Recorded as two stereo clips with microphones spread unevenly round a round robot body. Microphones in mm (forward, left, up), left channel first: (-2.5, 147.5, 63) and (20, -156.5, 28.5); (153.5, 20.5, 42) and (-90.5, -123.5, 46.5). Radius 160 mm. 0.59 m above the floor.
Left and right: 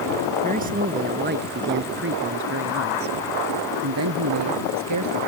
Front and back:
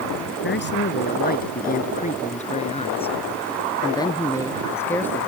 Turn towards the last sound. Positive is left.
turn(degrees=-55)